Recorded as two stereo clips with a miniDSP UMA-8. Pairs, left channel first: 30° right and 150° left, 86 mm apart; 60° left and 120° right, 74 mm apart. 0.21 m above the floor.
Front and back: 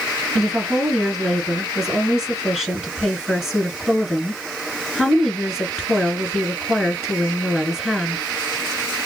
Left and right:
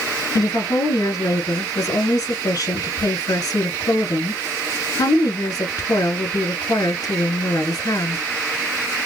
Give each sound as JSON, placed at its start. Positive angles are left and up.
{"t": 0.3, "sound": "a woman speaking", "azimuth_deg": 65, "distance_m": 3.0}